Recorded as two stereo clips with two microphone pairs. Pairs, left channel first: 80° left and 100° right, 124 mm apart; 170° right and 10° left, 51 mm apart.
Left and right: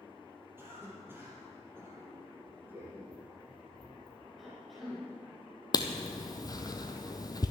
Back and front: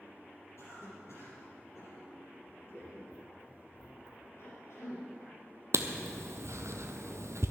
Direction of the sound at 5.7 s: 25° left.